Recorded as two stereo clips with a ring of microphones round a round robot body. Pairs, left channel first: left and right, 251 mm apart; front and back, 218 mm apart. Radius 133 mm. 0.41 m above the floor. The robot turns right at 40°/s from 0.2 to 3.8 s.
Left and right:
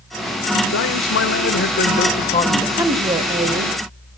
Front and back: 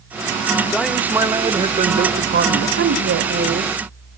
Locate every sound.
0.7 s a man speaking: 85° left, 1.7 m; by 2.7 s 165° left, 1.7 m
2.8 s a woman speaking: 170° right, 1.8 m; by 3.8 s 130° right, 1.8 m